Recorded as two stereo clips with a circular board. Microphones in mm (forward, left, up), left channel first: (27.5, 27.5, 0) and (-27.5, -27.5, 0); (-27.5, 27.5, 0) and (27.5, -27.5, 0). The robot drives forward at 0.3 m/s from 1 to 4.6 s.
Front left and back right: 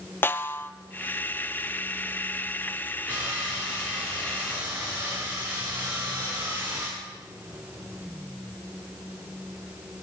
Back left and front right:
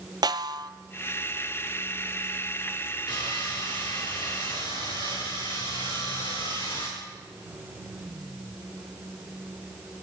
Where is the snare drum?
20° right, 0.8 m.